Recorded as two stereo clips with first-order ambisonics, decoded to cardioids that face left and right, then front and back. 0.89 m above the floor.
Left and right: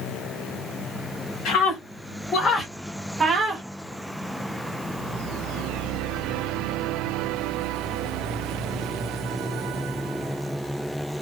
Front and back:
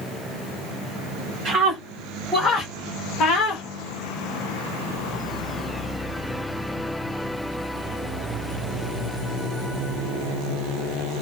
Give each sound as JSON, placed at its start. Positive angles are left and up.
{"t": 1.4, "sound": "a scream", "azimuth_deg": 115, "distance_m": 1.3}